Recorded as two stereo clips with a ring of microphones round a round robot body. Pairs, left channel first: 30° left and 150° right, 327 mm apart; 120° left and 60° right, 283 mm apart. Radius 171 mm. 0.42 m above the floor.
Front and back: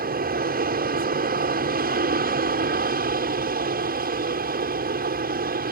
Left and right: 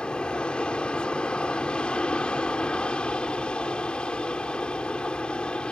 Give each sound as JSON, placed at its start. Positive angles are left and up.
{"t": 0.0, "sound": "an aircraft", "azimuth_deg": -155}